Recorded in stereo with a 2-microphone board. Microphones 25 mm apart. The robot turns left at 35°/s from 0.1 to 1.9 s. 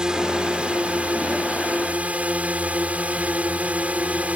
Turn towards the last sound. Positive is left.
turn(degrees=-95)